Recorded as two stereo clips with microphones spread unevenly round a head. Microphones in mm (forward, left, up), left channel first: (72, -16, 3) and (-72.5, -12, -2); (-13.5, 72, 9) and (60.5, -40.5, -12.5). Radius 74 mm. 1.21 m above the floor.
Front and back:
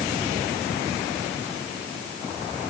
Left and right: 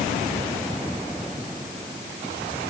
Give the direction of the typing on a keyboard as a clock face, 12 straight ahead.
I don't hear typing on a keyboard.